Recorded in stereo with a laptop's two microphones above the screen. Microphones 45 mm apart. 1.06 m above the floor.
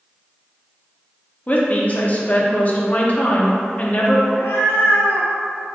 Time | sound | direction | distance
1.5 | a woman speaking | 35° left (ahead or behind) | 0.8 m
4.3 | a cat meowing | 70° left (ahead or behind) | 0.5 m